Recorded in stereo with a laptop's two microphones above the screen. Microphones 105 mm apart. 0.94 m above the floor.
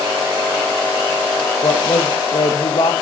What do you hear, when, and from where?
1.6 s a woman speaking: 55° left (ahead or behind), 0.6 m